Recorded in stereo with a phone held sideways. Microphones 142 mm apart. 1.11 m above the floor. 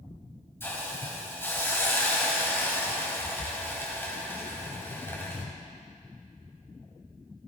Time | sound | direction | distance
0.6 | a hiss | 15° left (ahead or behind) | 2.5 m